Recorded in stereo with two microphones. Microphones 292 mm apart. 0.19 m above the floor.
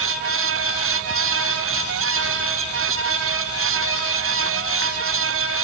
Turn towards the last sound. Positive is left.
No sound to turn to.